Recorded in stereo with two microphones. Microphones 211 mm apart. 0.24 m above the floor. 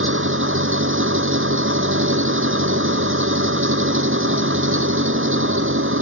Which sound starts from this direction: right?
An engine running, at 0.0 s.